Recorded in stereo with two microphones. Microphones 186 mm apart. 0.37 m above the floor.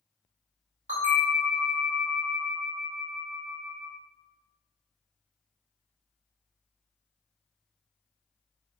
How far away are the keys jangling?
I don't hear keys jangling.